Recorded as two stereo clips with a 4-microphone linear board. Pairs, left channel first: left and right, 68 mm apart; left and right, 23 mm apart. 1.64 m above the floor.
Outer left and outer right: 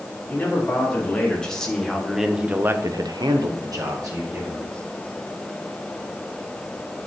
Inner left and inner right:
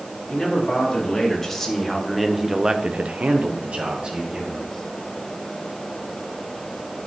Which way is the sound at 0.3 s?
20° left (ahead or behind).